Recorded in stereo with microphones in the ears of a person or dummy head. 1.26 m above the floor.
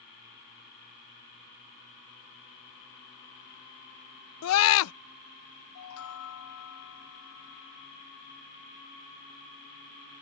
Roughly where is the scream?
Left.